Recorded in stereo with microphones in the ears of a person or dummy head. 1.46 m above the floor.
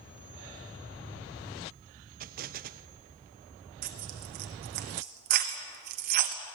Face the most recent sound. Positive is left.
turn(degrees=-45)  # may be behind; listen again after turning